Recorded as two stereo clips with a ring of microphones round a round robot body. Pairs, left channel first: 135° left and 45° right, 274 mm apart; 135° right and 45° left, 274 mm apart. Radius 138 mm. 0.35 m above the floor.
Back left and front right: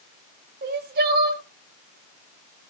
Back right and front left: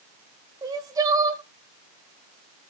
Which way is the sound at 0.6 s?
25° right.